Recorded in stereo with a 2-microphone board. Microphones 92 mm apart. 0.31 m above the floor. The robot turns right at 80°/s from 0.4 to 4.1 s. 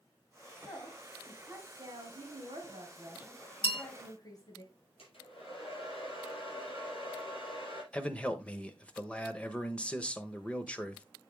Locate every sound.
0.7 s a woman speaking: 130° left, 2 m; by 4.6 s 45° left, 2 m
3.6 s a bell: 65° left (ahead or behind), 1.1 m; by 3.8 s 50° left (ahead or behind), 1.1 m
5.0 s a hair dryer: 80° left, 5 m
7.9 s a man speaking: 10° left (ahead or behind), 0.9 m